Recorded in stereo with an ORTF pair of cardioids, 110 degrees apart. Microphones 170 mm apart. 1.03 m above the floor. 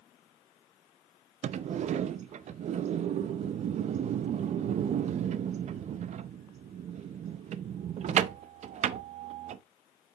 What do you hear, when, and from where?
1.4 s a sliding door: 45° right, 0.5 m